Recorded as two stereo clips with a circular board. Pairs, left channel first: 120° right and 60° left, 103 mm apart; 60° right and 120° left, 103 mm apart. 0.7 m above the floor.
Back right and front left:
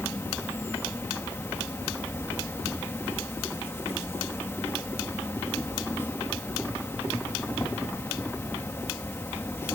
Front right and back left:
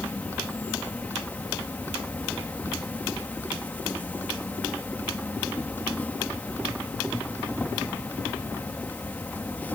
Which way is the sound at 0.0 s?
105° right.